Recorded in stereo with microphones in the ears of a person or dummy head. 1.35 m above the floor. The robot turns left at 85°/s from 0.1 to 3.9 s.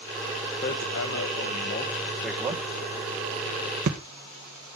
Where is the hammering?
40° left (ahead or behind), 1.3 m; by 4.0 s 40° right (ahead or behind), 1.3 m.